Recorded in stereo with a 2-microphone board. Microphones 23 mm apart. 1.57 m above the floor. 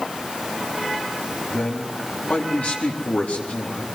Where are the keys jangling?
No keys jangling in this recording.